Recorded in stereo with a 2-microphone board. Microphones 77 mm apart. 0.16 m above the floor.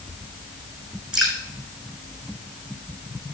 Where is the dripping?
5° right (ahead or behind), 7 m.